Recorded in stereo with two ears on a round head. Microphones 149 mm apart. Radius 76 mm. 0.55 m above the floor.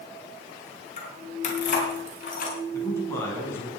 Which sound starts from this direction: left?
Keys jangling, at 1.0 s.